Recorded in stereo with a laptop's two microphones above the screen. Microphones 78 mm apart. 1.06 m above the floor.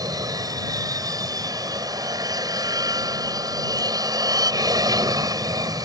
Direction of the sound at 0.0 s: 50° right (ahead or behind).